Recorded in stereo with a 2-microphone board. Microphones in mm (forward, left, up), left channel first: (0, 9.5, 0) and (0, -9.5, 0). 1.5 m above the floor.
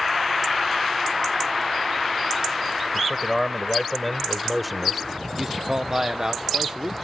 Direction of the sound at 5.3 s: 35° right (ahead or behind).